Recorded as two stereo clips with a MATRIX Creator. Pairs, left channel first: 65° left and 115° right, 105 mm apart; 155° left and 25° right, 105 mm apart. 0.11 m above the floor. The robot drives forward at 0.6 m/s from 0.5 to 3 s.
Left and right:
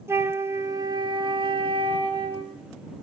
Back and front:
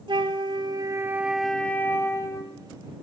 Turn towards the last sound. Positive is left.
turn(degrees=-160)